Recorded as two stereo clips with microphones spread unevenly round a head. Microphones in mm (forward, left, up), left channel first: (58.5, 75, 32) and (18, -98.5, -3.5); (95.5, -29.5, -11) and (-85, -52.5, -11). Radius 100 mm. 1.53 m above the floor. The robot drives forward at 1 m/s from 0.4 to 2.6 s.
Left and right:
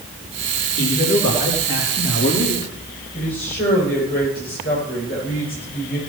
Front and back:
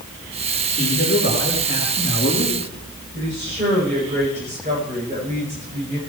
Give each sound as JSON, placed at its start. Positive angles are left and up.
{"t": 0.8, "sound": "a man speaking", "azimuth_deg": 50, "distance_m": 4.5}
{"t": 3.1, "sound": "a woman speaking", "azimuth_deg": 125, "distance_m": 8.5}